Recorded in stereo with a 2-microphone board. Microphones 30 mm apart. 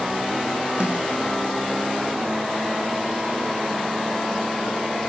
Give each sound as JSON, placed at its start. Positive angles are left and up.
{"t": 0.8, "sound": "a snare drum", "side_deg": -35, "distance_m": 5.5}